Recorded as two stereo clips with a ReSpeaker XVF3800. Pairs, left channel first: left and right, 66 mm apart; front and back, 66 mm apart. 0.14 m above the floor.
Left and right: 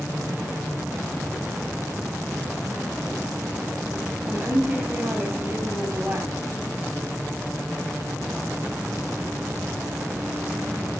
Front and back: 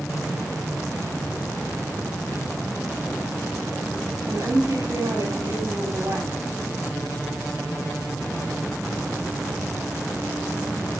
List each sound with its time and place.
4.3 s a woman speaking: 155° right, 4 m